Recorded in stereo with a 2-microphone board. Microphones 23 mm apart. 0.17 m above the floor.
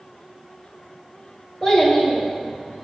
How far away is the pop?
I don't hear a pop.